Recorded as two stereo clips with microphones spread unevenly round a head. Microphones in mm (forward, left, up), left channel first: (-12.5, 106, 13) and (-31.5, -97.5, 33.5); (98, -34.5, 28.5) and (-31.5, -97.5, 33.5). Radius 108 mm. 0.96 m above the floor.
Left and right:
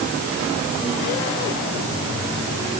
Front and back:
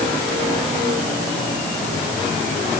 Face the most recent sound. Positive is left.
No sound to turn to.